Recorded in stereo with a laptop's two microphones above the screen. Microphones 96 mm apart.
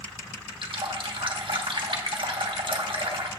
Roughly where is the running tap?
Right.